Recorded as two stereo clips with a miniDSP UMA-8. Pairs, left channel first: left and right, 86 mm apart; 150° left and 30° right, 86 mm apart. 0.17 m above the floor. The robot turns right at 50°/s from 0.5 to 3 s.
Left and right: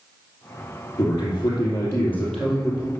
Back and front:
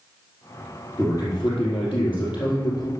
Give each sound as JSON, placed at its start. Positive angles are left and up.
{"t": 1.0, "sound": "a man speaking", "azimuth_deg": 100, "distance_m": 4.5}